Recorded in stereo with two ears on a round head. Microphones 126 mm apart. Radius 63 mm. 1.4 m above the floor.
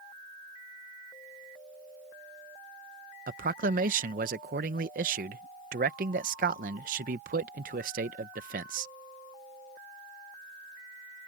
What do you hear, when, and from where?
3.3 s a man speaking: 65° right (ahead or behind)